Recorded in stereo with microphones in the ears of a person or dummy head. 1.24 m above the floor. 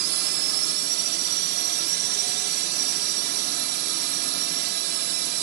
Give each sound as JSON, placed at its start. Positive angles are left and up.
{"t": 0.0, "sound": "a drone", "side_deg": -55}